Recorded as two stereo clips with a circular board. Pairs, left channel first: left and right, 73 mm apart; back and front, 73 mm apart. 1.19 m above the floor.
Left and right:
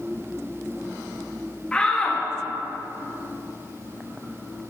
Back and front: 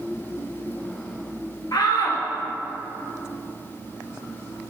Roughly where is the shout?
Behind.